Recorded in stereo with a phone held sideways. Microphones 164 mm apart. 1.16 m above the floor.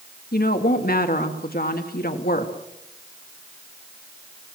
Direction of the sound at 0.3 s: 65° left (ahead or behind).